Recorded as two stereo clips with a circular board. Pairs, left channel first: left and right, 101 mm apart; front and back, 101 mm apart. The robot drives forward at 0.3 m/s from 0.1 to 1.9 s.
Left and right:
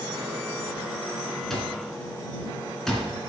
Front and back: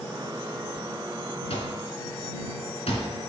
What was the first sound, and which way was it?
An alarm clock, 5° left.